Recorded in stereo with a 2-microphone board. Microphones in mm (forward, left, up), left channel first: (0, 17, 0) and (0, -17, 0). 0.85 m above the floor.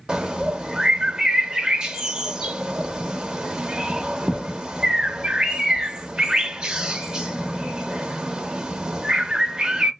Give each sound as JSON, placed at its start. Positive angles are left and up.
{"t": 0.1, "sound": "a bird", "side_deg": -20, "distance_m": 0.5}